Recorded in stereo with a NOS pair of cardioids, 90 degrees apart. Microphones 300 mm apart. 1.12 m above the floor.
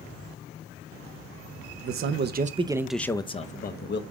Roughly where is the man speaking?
Ahead right.